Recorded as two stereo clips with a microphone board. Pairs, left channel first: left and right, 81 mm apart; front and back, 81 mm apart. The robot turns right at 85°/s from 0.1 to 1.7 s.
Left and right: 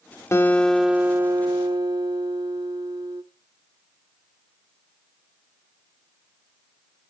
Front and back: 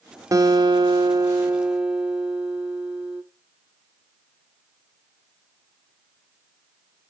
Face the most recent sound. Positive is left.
turn(degrees=-100)